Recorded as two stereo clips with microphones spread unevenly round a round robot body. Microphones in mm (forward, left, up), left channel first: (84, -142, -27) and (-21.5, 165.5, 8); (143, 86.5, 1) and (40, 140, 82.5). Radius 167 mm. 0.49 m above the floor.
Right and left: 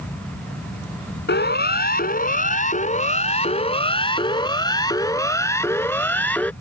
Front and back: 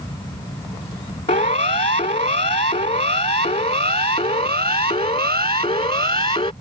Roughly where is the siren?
Ahead.